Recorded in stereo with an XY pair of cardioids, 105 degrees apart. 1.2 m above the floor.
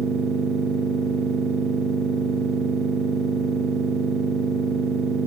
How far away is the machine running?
About 1.4 m.